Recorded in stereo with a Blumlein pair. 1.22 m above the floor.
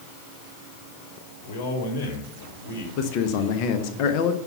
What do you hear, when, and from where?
1.4 s a man speaking: 45° left, 3 m
3.0 s a man speaking: 40° left, 1.1 m